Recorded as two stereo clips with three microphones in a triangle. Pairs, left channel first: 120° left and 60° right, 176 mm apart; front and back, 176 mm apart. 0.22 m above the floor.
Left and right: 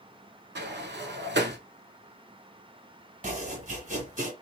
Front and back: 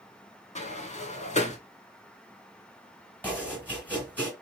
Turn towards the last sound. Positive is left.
turn(degrees=-75)